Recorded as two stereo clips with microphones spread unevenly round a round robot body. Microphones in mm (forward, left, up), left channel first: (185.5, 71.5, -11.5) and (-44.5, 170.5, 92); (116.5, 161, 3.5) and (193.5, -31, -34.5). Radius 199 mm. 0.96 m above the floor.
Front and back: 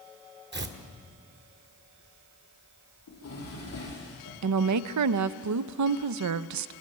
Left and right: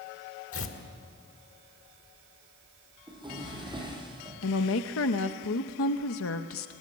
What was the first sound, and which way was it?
Tearing paper, 110° left.